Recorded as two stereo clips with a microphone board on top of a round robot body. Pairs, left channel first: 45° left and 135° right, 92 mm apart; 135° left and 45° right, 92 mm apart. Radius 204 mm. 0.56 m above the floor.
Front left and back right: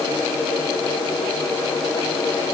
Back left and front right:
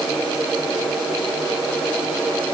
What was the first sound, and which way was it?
Only background noise.